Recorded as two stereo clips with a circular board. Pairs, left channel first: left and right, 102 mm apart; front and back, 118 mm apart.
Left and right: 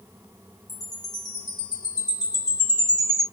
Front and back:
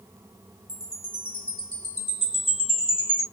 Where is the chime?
40° left, 2.5 m.